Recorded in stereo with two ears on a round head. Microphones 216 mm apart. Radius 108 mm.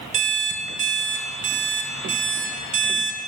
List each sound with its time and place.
0.1 s an alarm clock: 30° right (ahead or behind), 1.0 m